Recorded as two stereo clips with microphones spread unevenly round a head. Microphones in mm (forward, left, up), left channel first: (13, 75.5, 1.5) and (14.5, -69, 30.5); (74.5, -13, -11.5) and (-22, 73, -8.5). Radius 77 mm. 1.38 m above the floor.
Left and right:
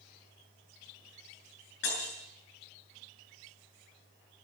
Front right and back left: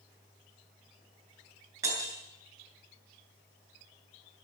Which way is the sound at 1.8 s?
70° left.